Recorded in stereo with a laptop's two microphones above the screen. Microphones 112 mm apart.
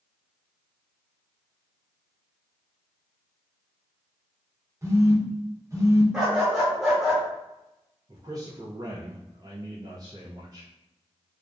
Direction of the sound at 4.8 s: 30° right (ahead or behind).